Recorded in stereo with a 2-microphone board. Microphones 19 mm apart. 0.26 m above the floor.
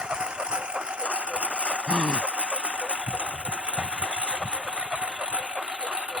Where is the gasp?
60° right (ahead or behind).